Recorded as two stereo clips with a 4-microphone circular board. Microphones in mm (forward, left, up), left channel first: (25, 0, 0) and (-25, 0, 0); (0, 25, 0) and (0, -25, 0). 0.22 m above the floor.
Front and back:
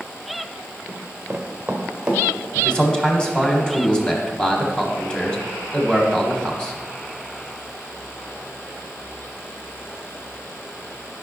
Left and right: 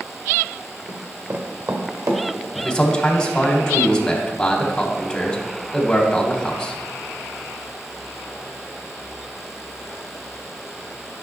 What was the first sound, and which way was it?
Running footsteps, 110° right.